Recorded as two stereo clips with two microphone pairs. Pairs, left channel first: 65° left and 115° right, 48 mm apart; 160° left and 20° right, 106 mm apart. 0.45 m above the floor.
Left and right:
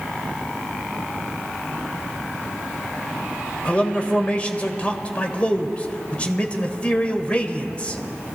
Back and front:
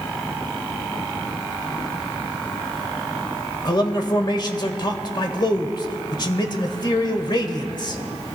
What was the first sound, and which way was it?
A man speaking, 125° left.